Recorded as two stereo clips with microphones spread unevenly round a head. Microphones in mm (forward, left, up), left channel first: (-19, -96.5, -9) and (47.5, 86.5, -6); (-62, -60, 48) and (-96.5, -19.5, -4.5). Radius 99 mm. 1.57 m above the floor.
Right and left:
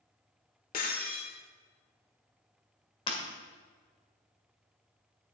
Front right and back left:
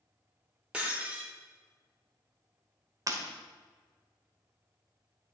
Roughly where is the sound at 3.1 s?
Behind.